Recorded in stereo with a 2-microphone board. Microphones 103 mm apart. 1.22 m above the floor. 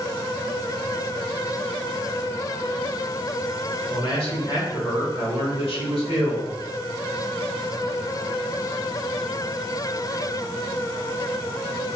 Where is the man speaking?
65° left (ahead or behind), 1.1 m.